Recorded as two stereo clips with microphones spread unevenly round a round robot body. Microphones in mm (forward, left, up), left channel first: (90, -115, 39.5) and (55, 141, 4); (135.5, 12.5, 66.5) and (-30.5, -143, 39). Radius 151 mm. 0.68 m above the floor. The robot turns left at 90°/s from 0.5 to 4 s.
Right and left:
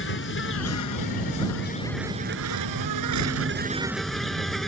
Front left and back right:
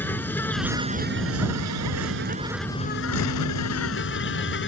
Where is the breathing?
No breathing in this recording.